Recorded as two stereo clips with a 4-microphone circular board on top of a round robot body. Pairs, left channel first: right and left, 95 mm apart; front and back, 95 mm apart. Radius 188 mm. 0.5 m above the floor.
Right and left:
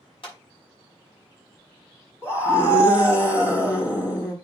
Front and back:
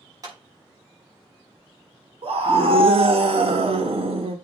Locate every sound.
0.2 s a clap: 125° right, 5.5 m
2.2 s a scream: 150° right, 1.8 m